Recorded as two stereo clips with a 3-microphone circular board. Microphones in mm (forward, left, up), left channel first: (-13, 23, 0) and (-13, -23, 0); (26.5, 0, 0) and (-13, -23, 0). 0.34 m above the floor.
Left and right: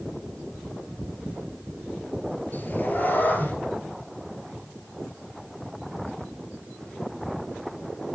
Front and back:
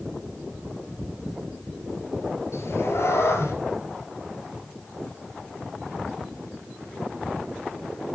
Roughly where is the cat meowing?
Ahead left.